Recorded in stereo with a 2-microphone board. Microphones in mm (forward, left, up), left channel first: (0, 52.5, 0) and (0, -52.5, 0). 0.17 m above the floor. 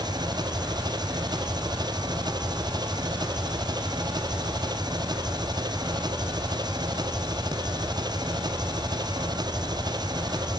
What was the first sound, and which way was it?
An engine running, 40° right (ahead or behind).